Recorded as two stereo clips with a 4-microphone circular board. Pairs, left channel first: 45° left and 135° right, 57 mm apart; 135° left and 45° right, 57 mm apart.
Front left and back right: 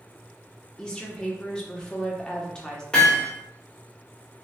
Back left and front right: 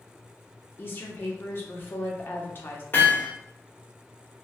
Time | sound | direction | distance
0.8 | a woman speaking | 115° left | 0.9 m
2.9 | hammering | 110° left | 1.2 m